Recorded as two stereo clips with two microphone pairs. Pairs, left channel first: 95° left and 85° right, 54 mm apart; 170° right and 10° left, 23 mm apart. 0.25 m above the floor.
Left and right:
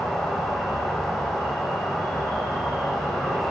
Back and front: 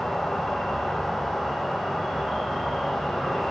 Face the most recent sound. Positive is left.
turn(degrees=155)